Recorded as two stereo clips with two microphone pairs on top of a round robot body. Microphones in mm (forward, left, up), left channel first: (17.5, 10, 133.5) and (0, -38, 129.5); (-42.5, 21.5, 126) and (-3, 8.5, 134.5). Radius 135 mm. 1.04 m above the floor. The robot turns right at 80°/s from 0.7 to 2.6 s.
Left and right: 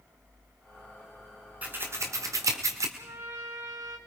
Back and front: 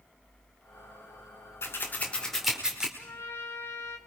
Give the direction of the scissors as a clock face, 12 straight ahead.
6 o'clock.